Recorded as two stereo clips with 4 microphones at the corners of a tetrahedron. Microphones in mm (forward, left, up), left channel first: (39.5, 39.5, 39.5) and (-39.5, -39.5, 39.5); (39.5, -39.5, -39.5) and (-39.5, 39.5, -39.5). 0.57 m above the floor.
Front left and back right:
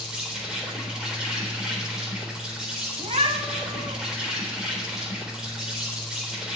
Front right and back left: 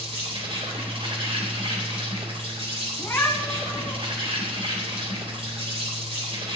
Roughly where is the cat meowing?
Behind right.